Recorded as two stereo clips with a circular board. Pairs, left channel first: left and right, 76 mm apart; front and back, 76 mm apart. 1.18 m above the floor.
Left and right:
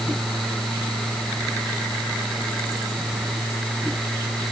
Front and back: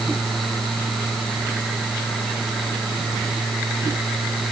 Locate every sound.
Only background noise.